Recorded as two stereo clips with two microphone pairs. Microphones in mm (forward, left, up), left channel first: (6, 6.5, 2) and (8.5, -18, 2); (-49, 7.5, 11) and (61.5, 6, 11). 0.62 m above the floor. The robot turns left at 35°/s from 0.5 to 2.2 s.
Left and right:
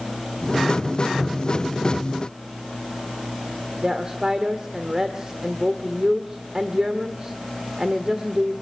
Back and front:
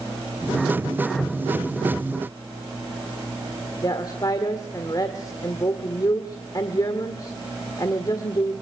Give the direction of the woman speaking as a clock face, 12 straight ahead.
5 o'clock.